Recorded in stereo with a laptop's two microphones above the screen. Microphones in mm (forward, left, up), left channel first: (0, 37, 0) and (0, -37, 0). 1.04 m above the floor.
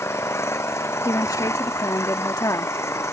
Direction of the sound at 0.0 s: 40° left (ahead or behind).